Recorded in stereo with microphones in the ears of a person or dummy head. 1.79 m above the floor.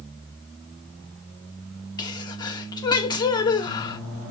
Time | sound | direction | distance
2.0 | a sneeze | 20° left (ahead or behind) | 1.0 m